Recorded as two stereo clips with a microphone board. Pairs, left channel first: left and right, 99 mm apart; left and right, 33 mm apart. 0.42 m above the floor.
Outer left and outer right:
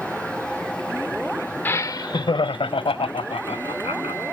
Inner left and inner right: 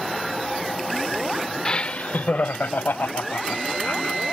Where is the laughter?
20° left (ahead or behind); by 4.2 s 80° left.